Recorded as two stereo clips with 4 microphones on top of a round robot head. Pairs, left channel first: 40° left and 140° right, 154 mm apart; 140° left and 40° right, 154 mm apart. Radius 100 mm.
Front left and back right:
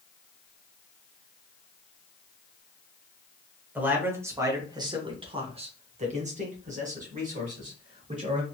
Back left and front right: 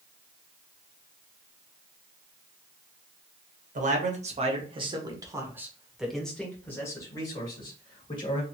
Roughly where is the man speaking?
Ahead right.